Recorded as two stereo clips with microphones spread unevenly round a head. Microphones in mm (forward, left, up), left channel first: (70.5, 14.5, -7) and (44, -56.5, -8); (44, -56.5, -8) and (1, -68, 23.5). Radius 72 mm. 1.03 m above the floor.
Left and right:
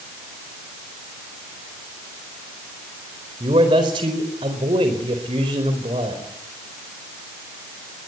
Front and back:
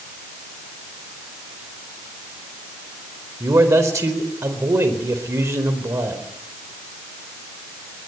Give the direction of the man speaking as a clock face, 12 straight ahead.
5 o'clock.